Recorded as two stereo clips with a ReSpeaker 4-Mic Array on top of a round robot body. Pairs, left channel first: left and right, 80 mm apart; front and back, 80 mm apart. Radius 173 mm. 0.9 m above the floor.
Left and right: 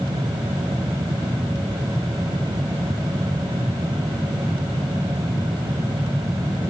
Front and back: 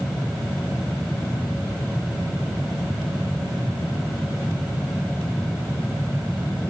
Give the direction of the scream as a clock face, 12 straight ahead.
No scream in this recording.